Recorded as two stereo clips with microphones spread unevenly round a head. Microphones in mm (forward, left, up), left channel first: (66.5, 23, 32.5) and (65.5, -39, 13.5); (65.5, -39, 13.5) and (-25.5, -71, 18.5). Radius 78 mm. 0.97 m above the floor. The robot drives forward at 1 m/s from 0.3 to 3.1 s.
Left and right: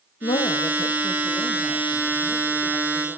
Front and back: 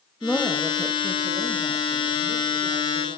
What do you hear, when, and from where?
0.2 s a woman speaking: 100° left, 0.7 m; by 3.2 s 170° left, 3 m